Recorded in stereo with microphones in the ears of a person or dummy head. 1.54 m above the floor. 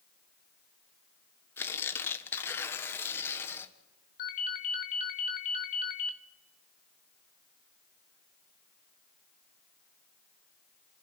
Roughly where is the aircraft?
I don't hear an aircraft.